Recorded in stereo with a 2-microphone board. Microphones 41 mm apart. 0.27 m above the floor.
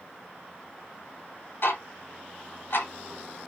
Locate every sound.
1.6 s ticking: 60° left (ahead or behind), 1.2 m